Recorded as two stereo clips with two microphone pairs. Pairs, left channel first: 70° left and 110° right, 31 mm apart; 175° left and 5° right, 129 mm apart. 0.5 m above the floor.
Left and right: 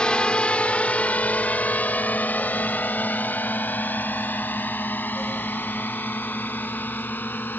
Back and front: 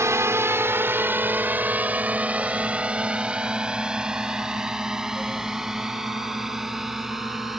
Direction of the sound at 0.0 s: 40° left.